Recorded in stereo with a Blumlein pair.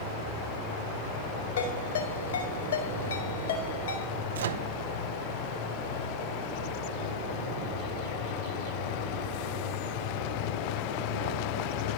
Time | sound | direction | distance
1.6 | a ringtone | 65° left | 4 m
4.3 | a microwave | 65° right | 0.8 m